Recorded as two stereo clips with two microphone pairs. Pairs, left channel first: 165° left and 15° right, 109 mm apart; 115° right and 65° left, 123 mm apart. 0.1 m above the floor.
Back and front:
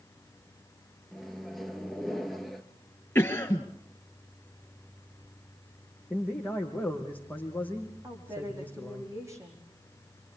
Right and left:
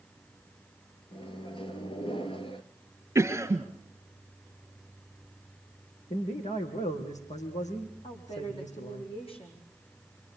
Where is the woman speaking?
75° right, 5.5 m.